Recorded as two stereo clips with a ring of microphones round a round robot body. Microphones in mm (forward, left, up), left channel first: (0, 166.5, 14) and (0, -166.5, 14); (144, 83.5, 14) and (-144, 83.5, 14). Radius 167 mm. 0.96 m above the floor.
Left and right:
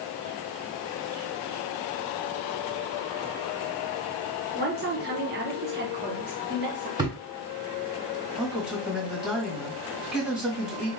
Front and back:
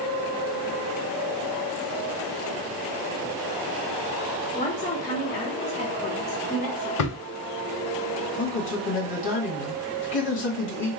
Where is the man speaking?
Straight ahead, 1.4 m.